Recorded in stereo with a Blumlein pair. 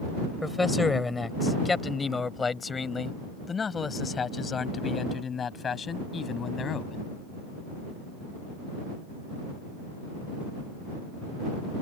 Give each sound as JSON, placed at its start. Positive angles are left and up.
{"t": 0.4, "sound": "a man speaking", "azimuth_deg": 10}